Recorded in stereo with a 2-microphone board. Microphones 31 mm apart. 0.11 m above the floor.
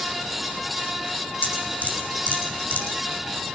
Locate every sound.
1.4 s dripping: 65° left (ahead or behind), 5.5 m